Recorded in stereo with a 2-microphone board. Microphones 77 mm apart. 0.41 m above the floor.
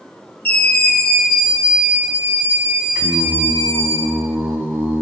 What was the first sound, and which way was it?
A scream, 20° left (ahead or behind).